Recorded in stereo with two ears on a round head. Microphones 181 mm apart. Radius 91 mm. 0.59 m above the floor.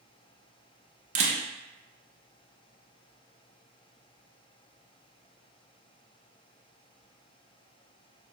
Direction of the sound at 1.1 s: 35° right (ahead or behind).